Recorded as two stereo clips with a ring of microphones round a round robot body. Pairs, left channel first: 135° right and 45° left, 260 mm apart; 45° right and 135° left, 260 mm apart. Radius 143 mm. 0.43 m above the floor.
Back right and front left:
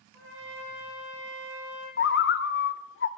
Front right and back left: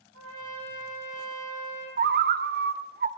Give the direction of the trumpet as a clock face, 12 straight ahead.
6 o'clock.